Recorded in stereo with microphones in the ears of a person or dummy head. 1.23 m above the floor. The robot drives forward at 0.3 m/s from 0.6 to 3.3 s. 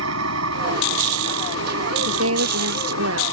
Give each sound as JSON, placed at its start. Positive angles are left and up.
{"t": 0.0, "sound": "an engine running", "side_deg": -85}
{"t": 2.0, "sound": "a woman speaking", "side_deg": -80}